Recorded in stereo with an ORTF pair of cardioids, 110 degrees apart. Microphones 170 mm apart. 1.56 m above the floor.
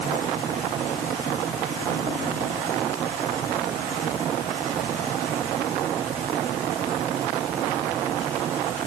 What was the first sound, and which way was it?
Only background noise.